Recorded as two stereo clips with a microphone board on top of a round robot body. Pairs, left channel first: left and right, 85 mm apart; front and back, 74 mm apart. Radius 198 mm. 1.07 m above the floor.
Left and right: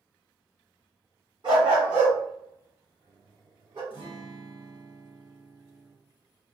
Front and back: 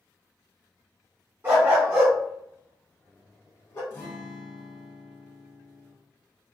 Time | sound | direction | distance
1.4 | a dog barking | 120° right | 0.7 m
3.9 | a guitar | 60° left | 0.6 m